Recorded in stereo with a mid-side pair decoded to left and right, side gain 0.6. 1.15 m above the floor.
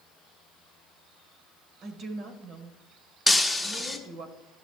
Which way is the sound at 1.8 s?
60° right.